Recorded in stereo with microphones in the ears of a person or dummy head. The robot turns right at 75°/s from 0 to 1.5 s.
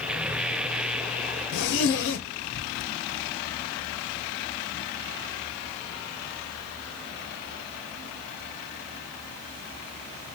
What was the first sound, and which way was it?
A zipper, 45° left (ahead or behind).